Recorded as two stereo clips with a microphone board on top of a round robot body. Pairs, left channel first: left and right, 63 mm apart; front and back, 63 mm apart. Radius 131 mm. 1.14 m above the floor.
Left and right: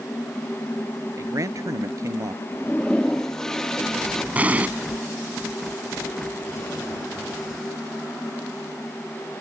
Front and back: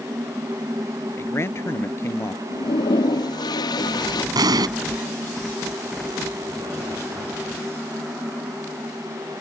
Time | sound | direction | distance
1.2 | a man speaking | 50° right | ?
2.5 | a toilet flushing | 10° left | ?
4.3 | an explosion | 160° right | ?